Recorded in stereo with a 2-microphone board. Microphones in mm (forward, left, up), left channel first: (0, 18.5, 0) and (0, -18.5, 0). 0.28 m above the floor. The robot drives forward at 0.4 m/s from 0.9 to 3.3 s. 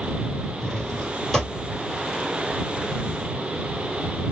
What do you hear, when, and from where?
0.6 s a drawer: 10° left (ahead or behind), 1.7 m